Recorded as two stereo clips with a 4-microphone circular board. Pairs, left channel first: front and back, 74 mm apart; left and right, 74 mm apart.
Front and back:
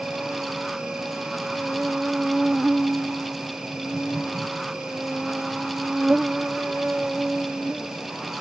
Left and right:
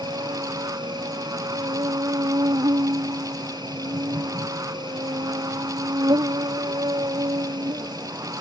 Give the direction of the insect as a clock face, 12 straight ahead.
3 o'clock.